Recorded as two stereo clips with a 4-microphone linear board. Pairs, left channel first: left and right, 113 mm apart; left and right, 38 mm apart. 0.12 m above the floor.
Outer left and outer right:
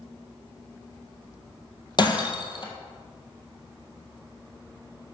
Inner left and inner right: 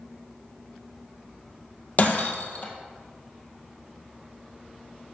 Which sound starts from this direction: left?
Breaking glass, at 2.0 s.